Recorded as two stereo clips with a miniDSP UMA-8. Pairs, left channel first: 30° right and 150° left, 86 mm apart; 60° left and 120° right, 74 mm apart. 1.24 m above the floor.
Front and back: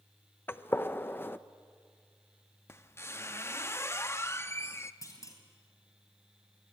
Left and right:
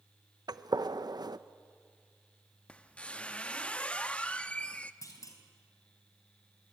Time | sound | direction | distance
0.5 | a gunshot | 95° right | 0.7 m
2.7 | a squeak | straight ahead | 0.7 m
5.0 | a clunk | 20° left | 3.5 m